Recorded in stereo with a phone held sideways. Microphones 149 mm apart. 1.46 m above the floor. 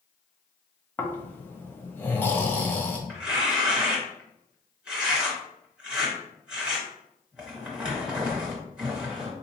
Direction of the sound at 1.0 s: 15° left (ahead or behind).